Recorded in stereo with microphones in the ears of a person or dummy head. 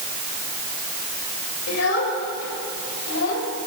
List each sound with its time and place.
1.7 s a child speaking: 75° left (ahead or behind), 4 m; by 3.5 s 70° left (ahead or behind), 5 m